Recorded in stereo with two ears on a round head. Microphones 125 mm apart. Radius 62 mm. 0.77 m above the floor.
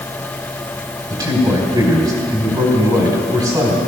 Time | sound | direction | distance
1.1 | a man speaking | 30° right (ahead or behind) | 4 m